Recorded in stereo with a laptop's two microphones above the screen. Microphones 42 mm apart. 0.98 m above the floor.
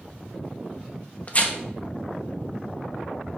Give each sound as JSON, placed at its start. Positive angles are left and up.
{"t": 1.3, "sound": "tearing paper", "side_deg": 35, "distance_m": 1.0}